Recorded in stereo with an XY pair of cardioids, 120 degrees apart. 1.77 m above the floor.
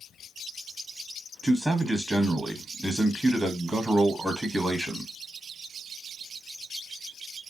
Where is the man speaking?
15° right, 1.1 m.